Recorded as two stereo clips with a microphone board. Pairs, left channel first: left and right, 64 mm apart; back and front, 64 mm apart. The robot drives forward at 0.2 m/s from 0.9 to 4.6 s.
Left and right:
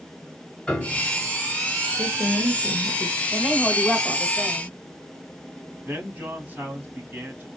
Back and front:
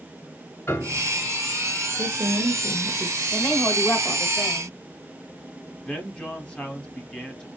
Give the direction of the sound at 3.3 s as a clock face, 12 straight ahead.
6 o'clock.